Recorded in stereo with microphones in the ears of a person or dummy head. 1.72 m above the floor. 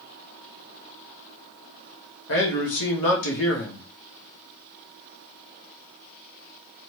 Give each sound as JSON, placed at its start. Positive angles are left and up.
{"t": 2.3, "sound": "a man speaking", "side_deg": 65, "distance_m": 1.0}